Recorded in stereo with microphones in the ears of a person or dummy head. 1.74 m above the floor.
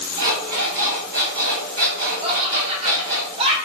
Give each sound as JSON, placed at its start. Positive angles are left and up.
{"t": 0.2, "sound": "an alarm clock", "side_deg": -35, "distance_m": 1.1}
{"t": 2.2, "sound": "laughter", "side_deg": -35, "distance_m": 1.0}